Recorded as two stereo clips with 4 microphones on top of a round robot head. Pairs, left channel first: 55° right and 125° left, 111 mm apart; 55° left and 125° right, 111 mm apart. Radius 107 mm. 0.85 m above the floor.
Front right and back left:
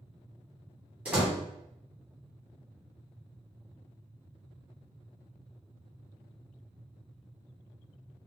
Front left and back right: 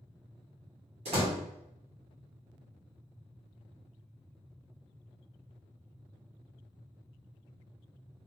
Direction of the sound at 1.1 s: 155° right.